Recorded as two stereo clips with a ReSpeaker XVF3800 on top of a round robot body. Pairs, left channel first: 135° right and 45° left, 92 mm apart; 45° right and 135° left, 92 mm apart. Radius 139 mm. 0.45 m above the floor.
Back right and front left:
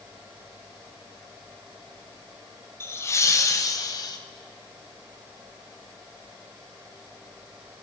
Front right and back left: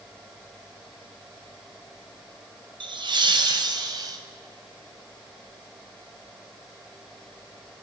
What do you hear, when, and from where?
2.8 s laughter: 165° left, 3 m; by 4.2 s straight behind, 3 m